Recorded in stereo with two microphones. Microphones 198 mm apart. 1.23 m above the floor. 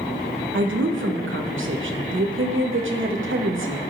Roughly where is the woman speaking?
Right.